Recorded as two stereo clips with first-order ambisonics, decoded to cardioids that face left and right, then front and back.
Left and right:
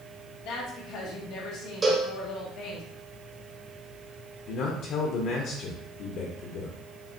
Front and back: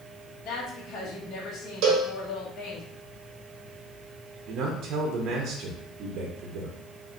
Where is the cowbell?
160° right, 0.9 m.